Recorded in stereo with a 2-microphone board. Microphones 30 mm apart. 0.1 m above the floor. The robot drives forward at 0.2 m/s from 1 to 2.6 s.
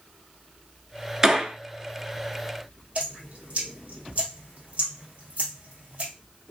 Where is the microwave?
I don't hear a microwave.